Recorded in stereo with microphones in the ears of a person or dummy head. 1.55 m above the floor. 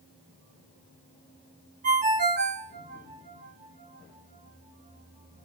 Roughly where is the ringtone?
Right.